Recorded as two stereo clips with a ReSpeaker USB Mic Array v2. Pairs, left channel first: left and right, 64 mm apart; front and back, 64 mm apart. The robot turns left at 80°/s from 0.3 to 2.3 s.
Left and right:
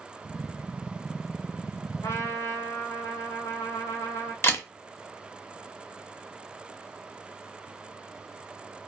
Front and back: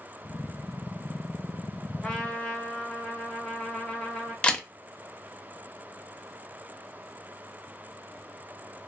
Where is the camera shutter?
65° left, 0.5 m.